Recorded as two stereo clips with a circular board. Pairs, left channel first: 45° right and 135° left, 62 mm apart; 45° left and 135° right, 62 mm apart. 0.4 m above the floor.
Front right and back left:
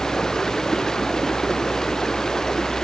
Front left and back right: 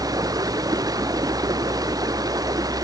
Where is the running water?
125° right.